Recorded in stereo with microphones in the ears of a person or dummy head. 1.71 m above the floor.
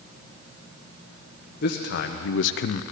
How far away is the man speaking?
About 1.3 m.